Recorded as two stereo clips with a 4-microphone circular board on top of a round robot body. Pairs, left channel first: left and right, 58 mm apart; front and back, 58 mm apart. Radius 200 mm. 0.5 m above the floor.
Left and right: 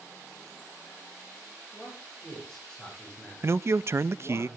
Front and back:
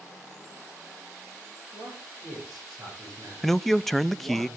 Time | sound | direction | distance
1.7 | a man speaking | 175° left | 9 m
3.4 | a man speaking | 85° right | 0.8 m